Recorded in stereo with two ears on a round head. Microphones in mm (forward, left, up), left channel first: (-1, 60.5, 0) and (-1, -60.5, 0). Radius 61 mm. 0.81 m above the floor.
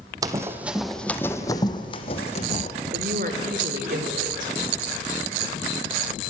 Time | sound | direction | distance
0.2 | running footsteps | 30° right (ahead or behind) | 1.5 m
2.9 | a woman speaking | 70° right (ahead or behind) | 2.5 m